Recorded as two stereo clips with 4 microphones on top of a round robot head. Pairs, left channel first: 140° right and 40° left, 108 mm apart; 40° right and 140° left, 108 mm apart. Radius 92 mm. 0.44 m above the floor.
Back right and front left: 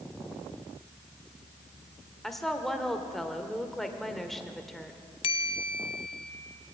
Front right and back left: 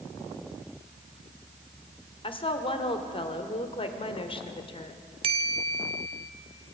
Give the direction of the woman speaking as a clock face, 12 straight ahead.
2 o'clock.